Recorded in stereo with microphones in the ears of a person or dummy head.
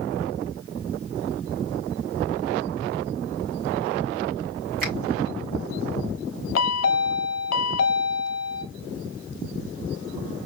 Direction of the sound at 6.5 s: 75° left (ahead or behind).